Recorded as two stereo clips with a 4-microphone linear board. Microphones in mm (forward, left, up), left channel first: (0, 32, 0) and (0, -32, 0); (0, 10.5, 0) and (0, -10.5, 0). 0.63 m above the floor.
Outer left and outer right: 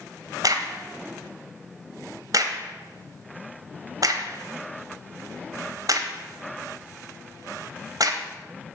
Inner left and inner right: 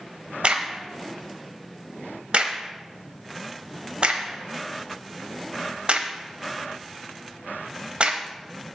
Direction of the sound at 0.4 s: 65° right (ahead or behind).